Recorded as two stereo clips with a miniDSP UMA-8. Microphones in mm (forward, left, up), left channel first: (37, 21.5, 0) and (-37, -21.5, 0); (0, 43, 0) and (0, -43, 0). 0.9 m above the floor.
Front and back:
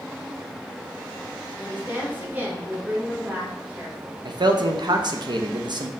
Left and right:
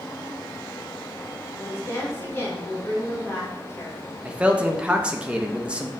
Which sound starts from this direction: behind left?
A woman speaking, at 1.6 s.